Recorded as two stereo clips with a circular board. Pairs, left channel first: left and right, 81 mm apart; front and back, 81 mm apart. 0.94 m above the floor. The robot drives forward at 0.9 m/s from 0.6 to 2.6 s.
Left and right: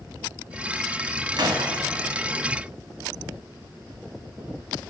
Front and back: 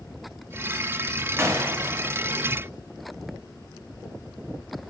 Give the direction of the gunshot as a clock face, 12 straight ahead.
4 o'clock.